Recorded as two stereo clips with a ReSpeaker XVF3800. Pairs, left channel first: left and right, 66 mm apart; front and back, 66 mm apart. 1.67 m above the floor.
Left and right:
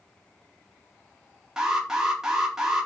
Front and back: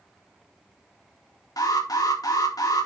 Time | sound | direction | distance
1.6 | an alarm | 10° right | 4 m